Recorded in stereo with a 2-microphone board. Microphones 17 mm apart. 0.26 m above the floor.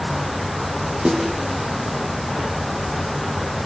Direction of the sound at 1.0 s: 70° right (ahead or behind).